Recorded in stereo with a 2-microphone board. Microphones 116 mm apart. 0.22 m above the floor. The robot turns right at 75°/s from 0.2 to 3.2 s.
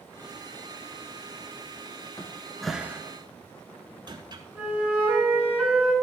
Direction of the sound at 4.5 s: 10° right (ahead or behind).